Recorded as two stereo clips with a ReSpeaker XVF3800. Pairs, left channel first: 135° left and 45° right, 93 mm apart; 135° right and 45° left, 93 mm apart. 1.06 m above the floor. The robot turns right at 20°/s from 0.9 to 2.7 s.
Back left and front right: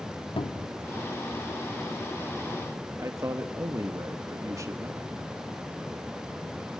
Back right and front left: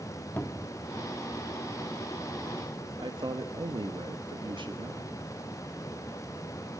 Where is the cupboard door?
155° left, 1.0 m.